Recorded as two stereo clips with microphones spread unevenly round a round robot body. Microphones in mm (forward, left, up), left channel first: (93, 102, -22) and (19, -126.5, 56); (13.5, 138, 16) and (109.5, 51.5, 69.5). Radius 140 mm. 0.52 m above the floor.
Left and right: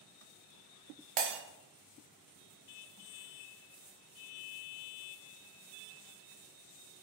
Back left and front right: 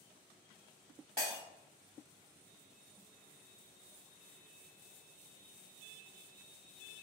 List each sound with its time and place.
1.2 s breaking glass: 105° right, 0.7 m